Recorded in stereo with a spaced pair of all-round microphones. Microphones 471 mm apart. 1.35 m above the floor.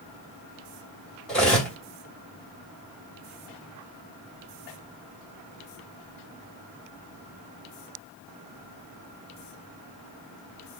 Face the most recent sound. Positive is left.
turn(degrees=0)  # may be behind; listen again after turning